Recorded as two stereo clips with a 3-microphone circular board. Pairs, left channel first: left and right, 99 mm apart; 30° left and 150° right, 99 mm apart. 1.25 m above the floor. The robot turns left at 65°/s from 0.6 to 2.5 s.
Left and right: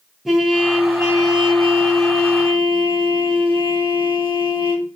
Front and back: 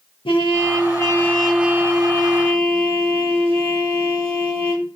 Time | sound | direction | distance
0.2 | a trumpet | straight ahead | 0.7 m